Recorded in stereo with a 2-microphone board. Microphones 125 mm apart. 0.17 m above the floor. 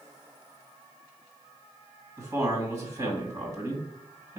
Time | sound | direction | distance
2.2 | a man speaking | 25° right (ahead or behind) | 1.9 m